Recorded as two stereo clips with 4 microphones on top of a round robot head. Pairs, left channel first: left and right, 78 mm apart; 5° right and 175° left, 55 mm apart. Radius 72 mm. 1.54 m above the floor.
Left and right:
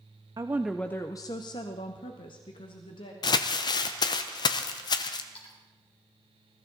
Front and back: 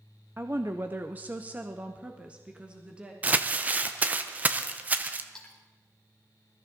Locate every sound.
0.4 s a woman speaking: 120° right, 0.5 m; by 3.1 s 105° left, 1.9 m
3.2 s crumpling: 115° left, 0.7 m
5.3 s a splash: 75° left, 3.5 m